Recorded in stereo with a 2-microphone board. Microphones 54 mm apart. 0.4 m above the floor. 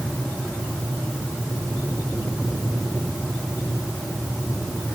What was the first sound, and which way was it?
Only background noise.